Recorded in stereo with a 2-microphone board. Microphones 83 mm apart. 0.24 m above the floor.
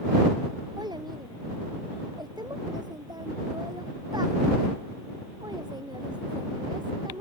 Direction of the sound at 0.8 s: 55° right (ahead or behind).